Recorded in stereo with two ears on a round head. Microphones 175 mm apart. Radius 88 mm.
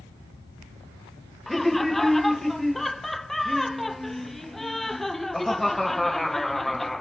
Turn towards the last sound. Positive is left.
turn(degrees=0)  # may be behind; listen again after turning